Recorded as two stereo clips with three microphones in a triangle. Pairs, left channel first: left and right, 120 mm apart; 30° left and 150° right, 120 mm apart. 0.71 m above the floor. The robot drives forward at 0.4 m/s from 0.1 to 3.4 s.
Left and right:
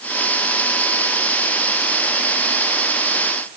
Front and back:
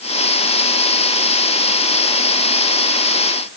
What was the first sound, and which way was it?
Only background noise.